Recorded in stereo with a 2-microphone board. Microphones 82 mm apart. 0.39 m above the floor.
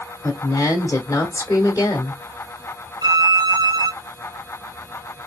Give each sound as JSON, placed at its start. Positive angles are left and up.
{"t": 0.2, "sound": "a woman speaking", "side_deg": 30, "distance_m": 0.8}
{"t": 3.0, "sound": "a violin", "side_deg": -60, "distance_m": 1.4}